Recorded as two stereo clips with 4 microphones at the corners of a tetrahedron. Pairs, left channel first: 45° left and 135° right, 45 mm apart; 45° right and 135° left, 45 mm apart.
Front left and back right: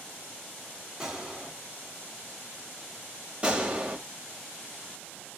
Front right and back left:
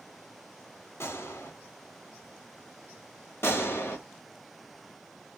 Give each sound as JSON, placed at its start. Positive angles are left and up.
{"t": 1.0, "sound": "a gunshot", "azimuth_deg": -65, "distance_m": 1.6}
{"t": 3.4, "sound": "a gunshot", "azimuth_deg": -75, "distance_m": 1.7}